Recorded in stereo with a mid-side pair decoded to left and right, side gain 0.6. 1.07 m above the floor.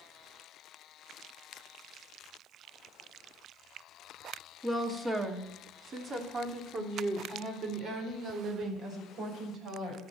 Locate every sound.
4.6 s a woman speaking: 10° right, 2.5 m; by 10.0 s 55° right, 6.5 m